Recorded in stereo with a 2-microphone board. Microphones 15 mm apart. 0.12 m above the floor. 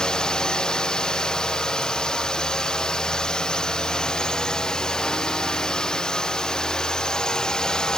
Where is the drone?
55° left (ahead or behind); by 8.0 s 50° left (ahead or behind).